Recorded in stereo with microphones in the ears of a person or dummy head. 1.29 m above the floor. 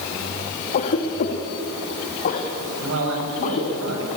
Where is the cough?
45° left (ahead or behind), 2 m.